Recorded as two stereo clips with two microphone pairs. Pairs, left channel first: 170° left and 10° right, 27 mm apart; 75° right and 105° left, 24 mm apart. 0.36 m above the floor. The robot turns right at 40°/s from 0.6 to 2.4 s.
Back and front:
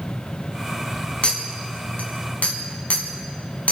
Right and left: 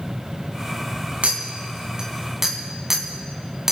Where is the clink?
130° left, 2.0 m; by 3.7 s straight behind, 2.0 m.